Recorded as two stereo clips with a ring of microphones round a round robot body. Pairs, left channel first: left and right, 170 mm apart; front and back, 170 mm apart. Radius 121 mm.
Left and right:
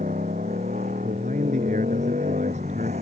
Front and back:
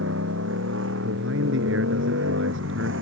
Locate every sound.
0.0 s a motorcycle: 155° right
1.0 s a man speaking: 155° right